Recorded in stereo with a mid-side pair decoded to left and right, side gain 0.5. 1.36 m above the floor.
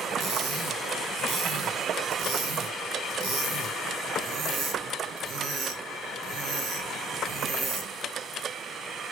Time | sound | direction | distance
0.2 | cutlery clinking | 65° right | 1.8 m